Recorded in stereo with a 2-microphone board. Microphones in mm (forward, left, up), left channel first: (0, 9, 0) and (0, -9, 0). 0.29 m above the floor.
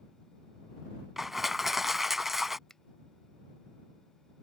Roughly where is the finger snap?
Left.